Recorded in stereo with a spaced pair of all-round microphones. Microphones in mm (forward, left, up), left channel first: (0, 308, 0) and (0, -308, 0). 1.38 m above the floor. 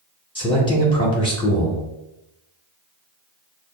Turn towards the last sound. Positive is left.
turn(degrees=10)  # may be behind; listen again after turning